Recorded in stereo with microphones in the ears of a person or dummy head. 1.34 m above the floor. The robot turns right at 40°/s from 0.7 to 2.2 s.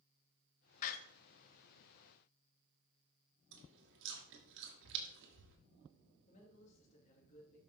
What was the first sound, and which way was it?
A door slam, 50° left (ahead or behind).